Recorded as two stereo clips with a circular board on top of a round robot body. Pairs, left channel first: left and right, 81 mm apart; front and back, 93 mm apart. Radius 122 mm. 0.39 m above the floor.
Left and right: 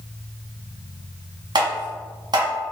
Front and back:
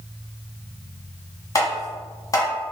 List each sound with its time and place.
1.6 s tapping: 55° right, 1.2 m